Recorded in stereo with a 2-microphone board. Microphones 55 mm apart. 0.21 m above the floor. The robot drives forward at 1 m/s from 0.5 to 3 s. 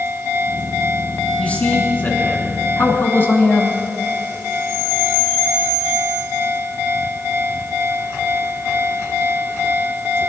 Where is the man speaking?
30° left (ahead or behind), 2.5 m; by 3.7 s 45° left (ahead or behind), 1.8 m.